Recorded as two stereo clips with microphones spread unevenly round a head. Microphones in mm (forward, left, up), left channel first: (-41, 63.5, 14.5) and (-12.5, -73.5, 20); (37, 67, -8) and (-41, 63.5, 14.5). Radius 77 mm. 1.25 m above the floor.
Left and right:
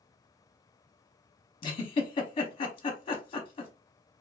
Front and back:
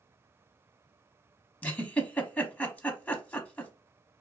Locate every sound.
1.6 s a giggle: 55° left, 0.8 m